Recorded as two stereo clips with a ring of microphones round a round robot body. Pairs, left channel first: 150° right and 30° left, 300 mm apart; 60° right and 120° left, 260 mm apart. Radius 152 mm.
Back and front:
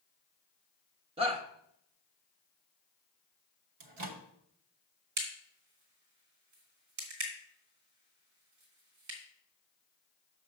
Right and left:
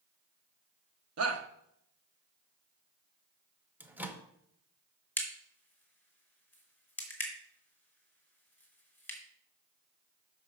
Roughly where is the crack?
Ahead.